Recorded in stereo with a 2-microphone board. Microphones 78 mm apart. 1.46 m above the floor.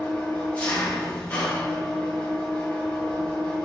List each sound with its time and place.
0.0 s an engine running: 20° left (ahead or behind), 0.9 m